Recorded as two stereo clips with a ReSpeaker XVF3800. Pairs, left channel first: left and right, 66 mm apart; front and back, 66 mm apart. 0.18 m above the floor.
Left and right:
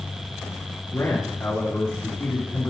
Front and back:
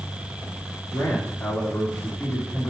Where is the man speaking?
40° left, 3 m.